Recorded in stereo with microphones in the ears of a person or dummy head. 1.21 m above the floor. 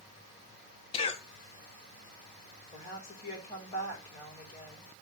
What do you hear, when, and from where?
0.9 s a cough: 25° left (ahead or behind), 0.6 m
2.7 s a woman speaking: 40° left (ahead or behind), 6 m